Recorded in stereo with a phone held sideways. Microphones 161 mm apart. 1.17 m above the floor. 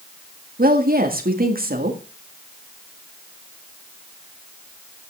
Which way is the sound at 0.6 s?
70° right (ahead or behind).